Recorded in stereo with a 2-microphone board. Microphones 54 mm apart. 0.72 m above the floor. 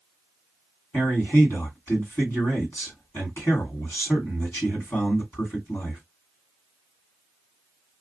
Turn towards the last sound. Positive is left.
turn(degrees=50)  # may be behind; listen again after turning